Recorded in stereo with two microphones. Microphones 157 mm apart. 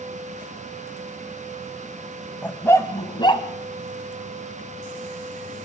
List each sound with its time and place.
2.4 s a dog barking: 10° left (ahead or behind), 1.8 m; by 3.5 s 35° left (ahead or behind), 2 m